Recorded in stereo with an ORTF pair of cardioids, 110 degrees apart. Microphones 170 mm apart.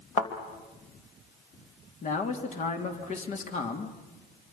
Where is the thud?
40° left, 3 m.